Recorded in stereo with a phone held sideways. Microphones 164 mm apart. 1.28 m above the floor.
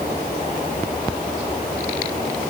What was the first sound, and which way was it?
Only background noise.